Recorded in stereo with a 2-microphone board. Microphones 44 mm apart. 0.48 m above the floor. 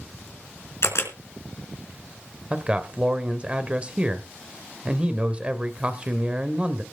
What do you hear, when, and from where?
0.8 s a camera shutter: 75° left (ahead or behind), 3.5 m
2.5 s a man speaking: 25° right (ahead or behind), 1.8 m